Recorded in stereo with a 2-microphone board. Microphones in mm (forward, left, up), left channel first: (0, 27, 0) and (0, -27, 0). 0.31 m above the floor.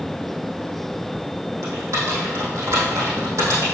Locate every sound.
1.6 s typing on a keyboard: 70° right (ahead or behind), 3.5 m